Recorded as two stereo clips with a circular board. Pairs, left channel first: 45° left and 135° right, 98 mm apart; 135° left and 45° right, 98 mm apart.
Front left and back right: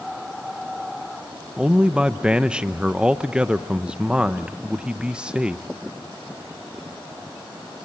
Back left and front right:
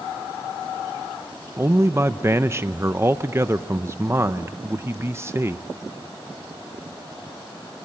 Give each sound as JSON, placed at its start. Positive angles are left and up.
{"t": 1.6, "sound": "a man speaking", "azimuth_deg": -70, "distance_m": 0.6}